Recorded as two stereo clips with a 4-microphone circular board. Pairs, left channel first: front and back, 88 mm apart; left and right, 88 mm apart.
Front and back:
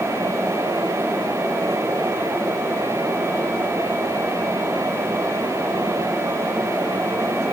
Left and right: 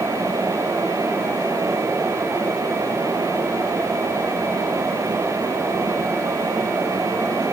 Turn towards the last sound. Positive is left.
No sound to turn to.